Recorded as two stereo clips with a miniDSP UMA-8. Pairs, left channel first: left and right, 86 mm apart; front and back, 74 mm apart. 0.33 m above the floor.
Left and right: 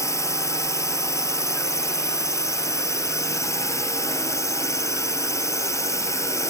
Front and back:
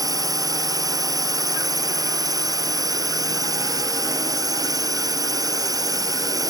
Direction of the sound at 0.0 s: 145° left.